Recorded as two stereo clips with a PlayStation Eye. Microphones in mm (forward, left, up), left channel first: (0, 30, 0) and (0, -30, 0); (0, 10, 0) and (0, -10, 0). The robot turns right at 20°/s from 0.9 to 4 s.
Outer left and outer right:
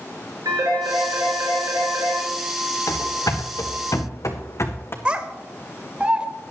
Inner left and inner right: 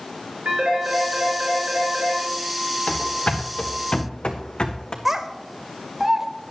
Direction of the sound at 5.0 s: 20° right (ahead or behind).